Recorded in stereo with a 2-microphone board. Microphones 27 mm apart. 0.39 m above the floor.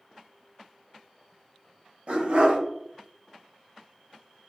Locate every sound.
2.1 s a dog barking: 65° right (ahead or behind), 0.7 m